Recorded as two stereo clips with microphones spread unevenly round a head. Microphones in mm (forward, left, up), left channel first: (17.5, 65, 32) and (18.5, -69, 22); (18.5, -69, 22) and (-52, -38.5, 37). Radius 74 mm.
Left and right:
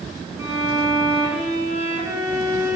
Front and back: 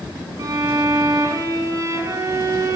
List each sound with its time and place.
0.4 s a violin: 155° right, 8 m